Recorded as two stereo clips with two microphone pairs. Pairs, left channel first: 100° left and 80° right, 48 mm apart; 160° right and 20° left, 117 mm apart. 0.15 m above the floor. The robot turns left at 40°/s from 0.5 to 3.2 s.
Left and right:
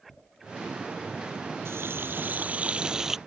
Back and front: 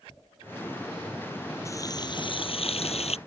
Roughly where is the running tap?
Right.